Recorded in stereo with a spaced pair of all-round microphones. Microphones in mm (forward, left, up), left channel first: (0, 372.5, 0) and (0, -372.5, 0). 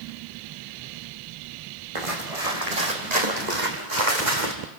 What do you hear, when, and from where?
1.9 s footsteps: 45° right (ahead or behind), 4.5 m; by 4.5 s 75° right (ahead or behind), 4.5 m